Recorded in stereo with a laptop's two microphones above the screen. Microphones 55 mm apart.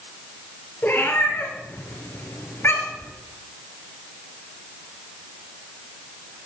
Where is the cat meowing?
40° left (ahead or behind), 1.7 m.